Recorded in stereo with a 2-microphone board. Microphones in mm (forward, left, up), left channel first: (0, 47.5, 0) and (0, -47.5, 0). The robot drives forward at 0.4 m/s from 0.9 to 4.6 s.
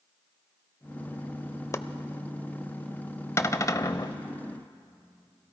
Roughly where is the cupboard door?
Left.